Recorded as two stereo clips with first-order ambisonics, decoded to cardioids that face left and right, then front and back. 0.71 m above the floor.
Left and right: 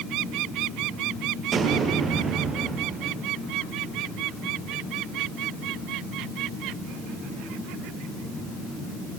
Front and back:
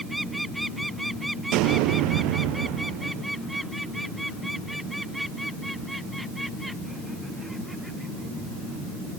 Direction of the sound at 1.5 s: 155° right.